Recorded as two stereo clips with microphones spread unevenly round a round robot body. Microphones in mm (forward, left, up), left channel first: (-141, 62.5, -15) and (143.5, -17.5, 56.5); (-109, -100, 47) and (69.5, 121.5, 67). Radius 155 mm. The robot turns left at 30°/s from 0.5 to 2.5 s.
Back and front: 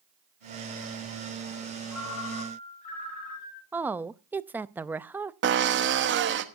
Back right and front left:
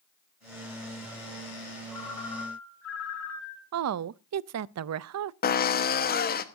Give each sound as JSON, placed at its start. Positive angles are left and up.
{"t": 1.9, "sound": "a ringtone", "azimuth_deg": -150, "distance_m": 8.0}
{"t": 3.7, "sound": "a woman speaking", "azimuth_deg": 75, "distance_m": 0.5}
{"t": 5.4, "sound": "a drill", "azimuth_deg": -75, "distance_m": 1.1}